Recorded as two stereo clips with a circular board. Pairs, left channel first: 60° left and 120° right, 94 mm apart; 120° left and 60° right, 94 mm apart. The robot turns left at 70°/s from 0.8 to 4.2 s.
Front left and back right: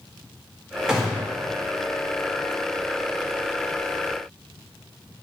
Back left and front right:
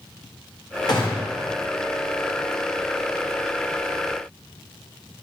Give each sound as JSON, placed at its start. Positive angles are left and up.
{"t": 0.9, "sound": "a gunshot", "azimuth_deg": 160, "distance_m": 0.8}